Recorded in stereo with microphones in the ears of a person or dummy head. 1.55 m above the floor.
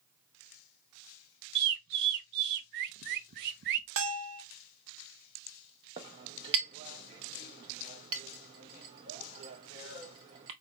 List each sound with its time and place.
1.6 s a bird: 60° right (ahead or behind), 0.6 m
4.0 s a bell: 70° right (ahead or behind), 0.7 m
6.0 s a clink: 20° right (ahead or behind), 0.7 m